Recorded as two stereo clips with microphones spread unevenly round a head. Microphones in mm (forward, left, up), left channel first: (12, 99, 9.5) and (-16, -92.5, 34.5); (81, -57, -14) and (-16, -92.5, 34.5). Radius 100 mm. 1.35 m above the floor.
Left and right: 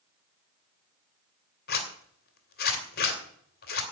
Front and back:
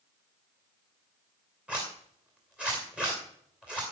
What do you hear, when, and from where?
1.7 s a zipper: 125° left, 2.5 m